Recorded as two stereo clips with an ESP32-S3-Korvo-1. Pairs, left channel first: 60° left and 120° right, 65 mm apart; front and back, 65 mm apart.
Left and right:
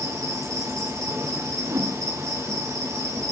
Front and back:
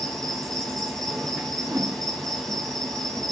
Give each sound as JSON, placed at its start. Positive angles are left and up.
{"t": 0.0, "sound": "an insect", "azimuth_deg": -80, "distance_m": 4.0}
{"t": 1.6, "sound": "a whoosh", "azimuth_deg": -135, "distance_m": 3.5}